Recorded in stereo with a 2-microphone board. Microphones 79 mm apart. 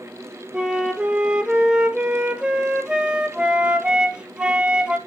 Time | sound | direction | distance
0.5 | a flute | 10° right (ahead or behind) | 0.6 m